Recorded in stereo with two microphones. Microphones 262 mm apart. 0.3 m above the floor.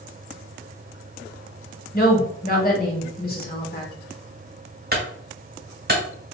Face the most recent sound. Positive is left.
turn(degrees=-40)  # may be behind; listen again after turning